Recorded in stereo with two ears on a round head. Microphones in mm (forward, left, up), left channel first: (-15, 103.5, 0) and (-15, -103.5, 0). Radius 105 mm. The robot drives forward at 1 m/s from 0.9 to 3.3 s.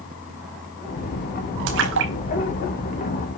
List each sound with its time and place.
1.7 s a splash: 55° right (ahead or behind), 5 m; by 3.4 s 70° right (ahead or behind), 4.5 m